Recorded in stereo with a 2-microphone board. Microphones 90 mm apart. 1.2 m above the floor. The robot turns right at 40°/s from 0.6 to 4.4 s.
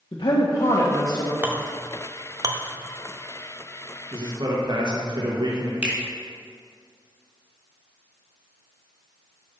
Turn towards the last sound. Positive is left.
turn(degrees=-15)  # may be behind; listen again after turning